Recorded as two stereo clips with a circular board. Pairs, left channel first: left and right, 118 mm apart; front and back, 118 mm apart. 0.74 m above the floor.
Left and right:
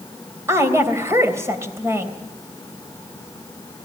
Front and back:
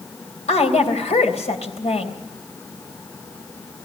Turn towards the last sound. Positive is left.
turn(degrees=-25)